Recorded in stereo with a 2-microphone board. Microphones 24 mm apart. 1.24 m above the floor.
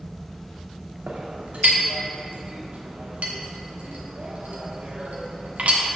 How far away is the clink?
About 1.3 m.